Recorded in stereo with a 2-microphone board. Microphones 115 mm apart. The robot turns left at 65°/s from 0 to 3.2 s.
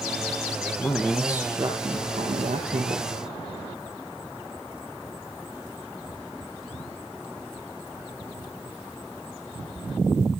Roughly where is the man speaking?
Ahead.